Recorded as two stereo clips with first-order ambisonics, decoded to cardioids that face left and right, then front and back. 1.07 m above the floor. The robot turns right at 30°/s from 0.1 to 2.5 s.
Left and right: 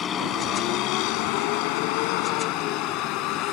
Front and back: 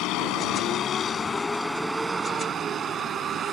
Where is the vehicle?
30° left; by 3.5 s 120° left.